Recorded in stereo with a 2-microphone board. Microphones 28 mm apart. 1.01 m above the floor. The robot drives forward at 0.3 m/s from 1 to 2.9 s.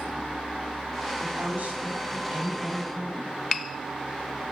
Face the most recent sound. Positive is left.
turn(degrees=-80)